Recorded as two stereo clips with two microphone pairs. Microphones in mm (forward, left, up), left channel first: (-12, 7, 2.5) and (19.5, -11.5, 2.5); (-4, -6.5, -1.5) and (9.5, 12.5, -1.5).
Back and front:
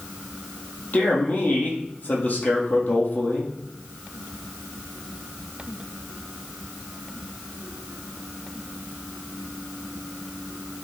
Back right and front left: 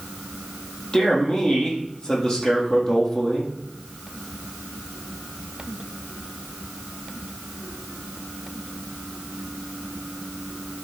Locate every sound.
0.9 s a man speaking: 170° right, 4 m